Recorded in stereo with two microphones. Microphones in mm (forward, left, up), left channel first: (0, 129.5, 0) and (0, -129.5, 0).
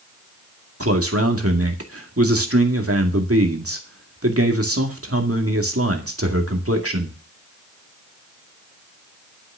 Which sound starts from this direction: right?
A man speaking, at 0.8 s.